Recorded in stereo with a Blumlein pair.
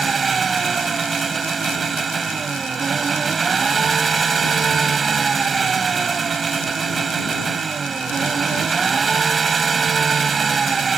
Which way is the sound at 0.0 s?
15° right.